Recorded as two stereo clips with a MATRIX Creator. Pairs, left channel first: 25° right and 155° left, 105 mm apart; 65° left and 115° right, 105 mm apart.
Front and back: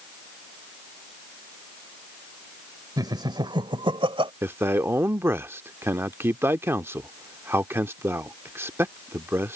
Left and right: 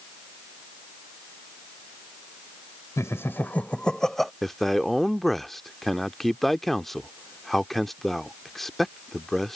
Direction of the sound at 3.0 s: 120° left.